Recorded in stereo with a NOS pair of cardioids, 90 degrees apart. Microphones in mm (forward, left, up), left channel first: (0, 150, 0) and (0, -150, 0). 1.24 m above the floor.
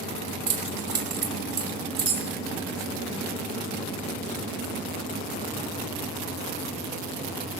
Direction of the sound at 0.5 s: 55° right.